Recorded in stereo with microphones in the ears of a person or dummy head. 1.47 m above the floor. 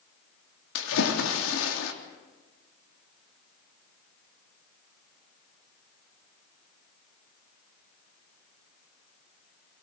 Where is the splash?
85° left, 3 m.